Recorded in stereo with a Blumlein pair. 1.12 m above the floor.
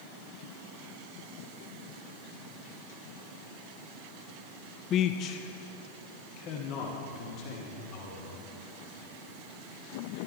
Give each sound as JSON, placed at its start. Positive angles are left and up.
{"t": 4.9, "sound": "a man speaking", "azimuth_deg": 30, "distance_m": 0.5}